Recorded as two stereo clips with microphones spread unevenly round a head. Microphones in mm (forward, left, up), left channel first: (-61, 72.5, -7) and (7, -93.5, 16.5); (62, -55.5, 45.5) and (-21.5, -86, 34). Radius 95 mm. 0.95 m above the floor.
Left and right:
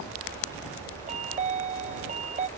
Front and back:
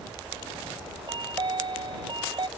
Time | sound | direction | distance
1.1 | a chime | 120° right | ?